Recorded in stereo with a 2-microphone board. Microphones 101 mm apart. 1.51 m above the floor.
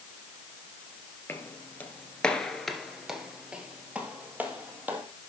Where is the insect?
I don't hear an insect.